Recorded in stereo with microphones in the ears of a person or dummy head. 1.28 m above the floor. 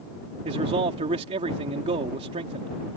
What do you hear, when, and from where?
0.5 s a man speaking: 35° right (ahead or behind)